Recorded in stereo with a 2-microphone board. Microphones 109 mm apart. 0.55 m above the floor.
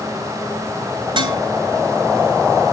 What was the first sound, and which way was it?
Dishes clattering, 50° right (ahead or behind).